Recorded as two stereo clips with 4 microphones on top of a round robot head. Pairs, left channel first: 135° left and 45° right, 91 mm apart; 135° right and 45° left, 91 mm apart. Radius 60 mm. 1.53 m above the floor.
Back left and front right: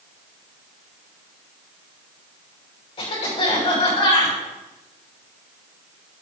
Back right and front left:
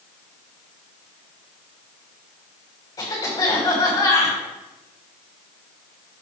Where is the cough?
165° left, 5.5 m.